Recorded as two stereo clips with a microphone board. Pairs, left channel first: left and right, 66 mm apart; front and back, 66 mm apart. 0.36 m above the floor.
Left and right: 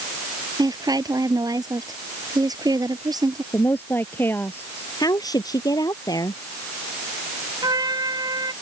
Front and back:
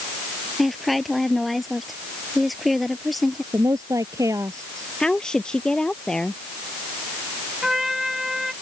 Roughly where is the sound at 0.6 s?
Right.